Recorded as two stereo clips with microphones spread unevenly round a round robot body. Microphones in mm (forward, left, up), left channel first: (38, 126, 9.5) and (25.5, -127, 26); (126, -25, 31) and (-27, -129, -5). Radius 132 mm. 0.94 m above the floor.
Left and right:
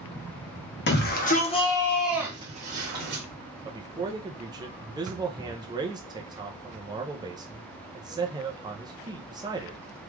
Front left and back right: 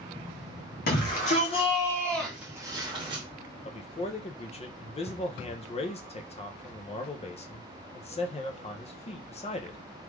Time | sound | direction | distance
0.9 | a shout | 70° left | 1.1 m
3.6 | a man speaking | 20° right | 0.6 m